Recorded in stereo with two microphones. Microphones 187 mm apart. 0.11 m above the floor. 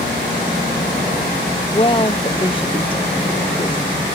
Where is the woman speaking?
30° left (ahead or behind); by 4.0 s 25° left (ahead or behind).